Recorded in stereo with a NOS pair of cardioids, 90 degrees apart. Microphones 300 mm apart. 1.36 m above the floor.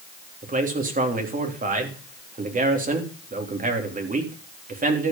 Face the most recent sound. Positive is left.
turn(degrees=-30)